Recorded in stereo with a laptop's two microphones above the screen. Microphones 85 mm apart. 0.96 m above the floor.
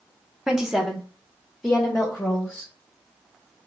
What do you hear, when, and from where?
0.5 s a woman speaking: 5° right (ahead or behind), 0.5 m; by 2.7 s 10° left (ahead or behind), 1.1 m